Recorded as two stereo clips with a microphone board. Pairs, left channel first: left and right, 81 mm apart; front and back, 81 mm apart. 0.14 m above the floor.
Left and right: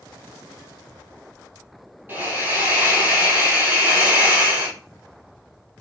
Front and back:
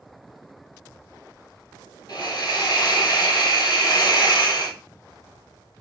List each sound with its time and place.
2.1 s a hiss: 25° right, 2.0 m